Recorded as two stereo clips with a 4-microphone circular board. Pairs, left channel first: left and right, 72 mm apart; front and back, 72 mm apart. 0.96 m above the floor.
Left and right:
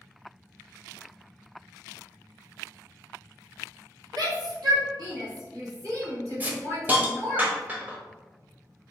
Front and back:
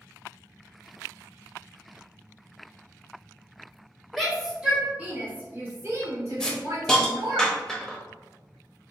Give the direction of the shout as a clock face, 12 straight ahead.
3 o'clock.